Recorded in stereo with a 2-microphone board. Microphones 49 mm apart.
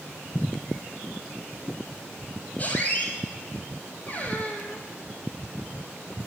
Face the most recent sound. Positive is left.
turn(degrees=35)  # may be behind; listen again after turning